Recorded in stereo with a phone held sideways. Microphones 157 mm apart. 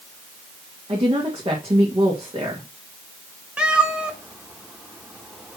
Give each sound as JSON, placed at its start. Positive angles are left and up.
{"t": 0.9, "sound": "a woman speaking", "side_deg": -35, "distance_m": 1.6}
{"t": 3.6, "sound": "a cat meowing", "side_deg": -5, "distance_m": 0.9}